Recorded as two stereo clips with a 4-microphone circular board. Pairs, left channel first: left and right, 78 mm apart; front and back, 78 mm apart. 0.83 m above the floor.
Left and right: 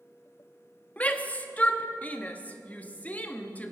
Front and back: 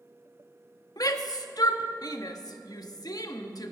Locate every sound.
1.0 s a shout: 20° left, 1.0 m